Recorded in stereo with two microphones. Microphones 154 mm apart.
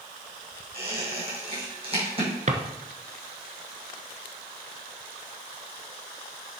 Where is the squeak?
35° right (ahead or behind), 5 m.